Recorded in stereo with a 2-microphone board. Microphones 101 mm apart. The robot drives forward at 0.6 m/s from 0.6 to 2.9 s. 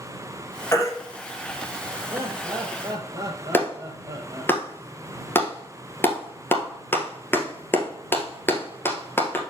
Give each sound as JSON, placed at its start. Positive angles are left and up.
{"t": 0.7, "sound": "a baby crying", "side_deg": 25, "distance_m": 2.5}
{"t": 2.1, "sound": "laughter", "side_deg": -25, "distance_m": 2.5}
{"t": 3.5, "sound": "a clap", "side_deg": 20, "distance_m": 1.5}